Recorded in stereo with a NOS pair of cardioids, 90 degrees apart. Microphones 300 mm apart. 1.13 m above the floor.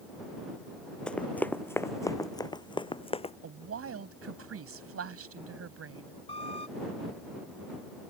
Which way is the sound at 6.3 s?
20° left.